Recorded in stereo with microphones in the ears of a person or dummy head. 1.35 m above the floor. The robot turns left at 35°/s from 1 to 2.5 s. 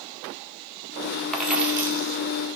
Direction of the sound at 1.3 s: Centre (ahead or behind).